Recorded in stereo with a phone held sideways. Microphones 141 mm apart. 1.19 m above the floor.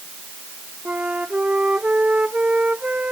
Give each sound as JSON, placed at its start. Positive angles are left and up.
{"t": 0.8, "sound": "a flute", "side_deg": -10}